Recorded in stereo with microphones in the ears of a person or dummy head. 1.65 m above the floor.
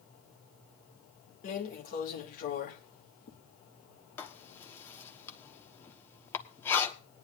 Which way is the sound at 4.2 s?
15° left (ahead or behind).